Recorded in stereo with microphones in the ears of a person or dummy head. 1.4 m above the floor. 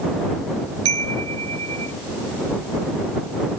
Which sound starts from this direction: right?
A chime, at 0.8 s.